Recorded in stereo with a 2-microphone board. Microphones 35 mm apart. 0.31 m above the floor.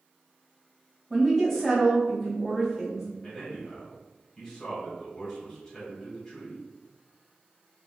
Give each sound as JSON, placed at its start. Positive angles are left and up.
{"t": 1.1, "sound": "a woman speaking", "side_deg": 0, "distance_m": 1.5}
{"t": 3.2, "sound": "a man speaking", "side_deg": 15, "distance_m": 1.9}